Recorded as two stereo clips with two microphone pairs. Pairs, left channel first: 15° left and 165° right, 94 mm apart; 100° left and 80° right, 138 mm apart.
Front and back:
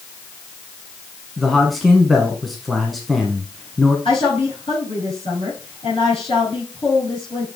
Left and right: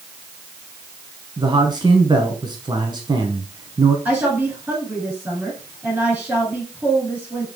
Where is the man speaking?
75° right, 1.2 m.